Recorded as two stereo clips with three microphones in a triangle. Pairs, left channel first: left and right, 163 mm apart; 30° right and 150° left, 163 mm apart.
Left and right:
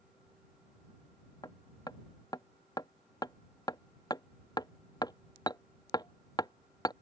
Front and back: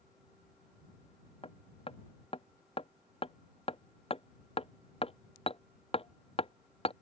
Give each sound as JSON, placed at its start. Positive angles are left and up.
{"t": 1.4, "sound": "hammering", "azimuth_deg": 25}